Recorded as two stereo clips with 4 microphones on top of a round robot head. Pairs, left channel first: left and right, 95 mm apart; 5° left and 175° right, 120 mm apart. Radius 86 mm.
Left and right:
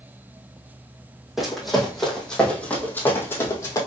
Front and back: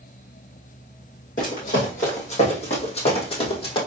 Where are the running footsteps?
Straight ahead, 2.5 m; by 3.8 s 40° left, 1.9 m.